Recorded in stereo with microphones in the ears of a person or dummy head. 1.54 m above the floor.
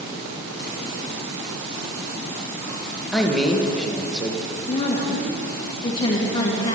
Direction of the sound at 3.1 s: Centre (ahead or behind).